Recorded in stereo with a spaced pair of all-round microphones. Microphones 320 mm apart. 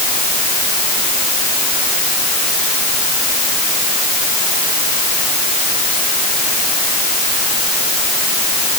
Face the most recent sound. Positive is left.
No sound to turn to.